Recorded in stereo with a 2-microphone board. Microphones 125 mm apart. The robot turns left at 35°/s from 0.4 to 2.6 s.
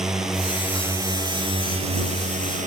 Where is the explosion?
No explosion in this recording.